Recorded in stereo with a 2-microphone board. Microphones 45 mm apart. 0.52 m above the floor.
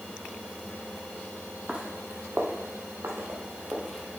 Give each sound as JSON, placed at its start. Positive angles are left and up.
{"t": 1.7, "sound": "footsteps", "side_deg": -20, "distance_m": 1.1}